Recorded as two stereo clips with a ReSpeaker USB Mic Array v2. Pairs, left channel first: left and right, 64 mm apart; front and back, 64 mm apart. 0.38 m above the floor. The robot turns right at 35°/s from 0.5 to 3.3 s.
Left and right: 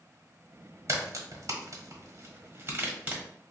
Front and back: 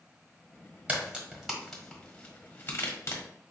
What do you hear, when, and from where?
0.9 s a crack: 115° right, 1.3 m; by 3.2 s 30° right, 1.3 m